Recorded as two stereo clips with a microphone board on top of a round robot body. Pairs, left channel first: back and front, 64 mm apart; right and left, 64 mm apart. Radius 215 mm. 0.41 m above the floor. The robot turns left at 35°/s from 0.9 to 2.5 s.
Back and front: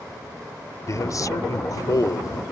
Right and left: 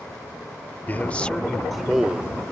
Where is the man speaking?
150° right; by 2.4 s 155° left.